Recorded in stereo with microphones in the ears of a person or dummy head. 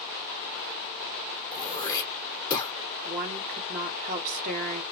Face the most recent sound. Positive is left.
turn(degrees=-45)  # may be behind; listen again after turning